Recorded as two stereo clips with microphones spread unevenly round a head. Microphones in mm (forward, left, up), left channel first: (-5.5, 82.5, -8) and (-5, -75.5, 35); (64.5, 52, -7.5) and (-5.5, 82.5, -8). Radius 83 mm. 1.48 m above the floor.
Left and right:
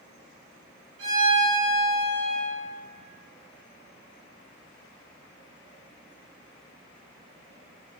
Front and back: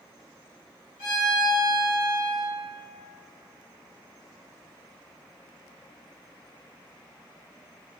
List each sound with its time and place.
1.0 s a violin: 70° right, 1.6 m